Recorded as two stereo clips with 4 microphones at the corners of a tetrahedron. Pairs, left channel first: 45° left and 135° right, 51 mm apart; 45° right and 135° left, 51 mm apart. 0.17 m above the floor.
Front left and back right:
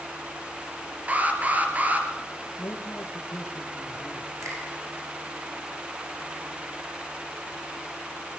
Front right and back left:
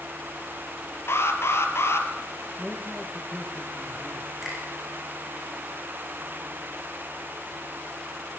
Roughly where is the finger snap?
Behind right.